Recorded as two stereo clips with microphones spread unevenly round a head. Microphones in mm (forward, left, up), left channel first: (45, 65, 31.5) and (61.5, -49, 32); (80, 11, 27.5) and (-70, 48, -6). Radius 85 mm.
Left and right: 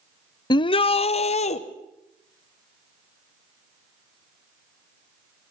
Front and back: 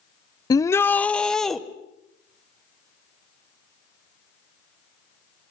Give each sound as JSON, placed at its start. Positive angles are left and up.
{"t": 0.5, "sound": "a shout", "azimuth_deg": 45, "distance_m": 0.6}